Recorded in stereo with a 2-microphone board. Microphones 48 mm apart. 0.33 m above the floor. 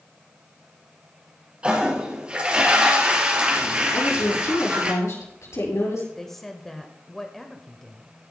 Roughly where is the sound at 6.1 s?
Centre.